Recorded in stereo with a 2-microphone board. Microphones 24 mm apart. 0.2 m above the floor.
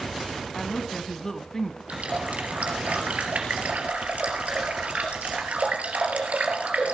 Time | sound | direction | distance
0.6 | a woman speaking | 20° left (ahead or behind) | 1.6 m
1.9 | a running tap | 70° right (ahead or behind) | 3 m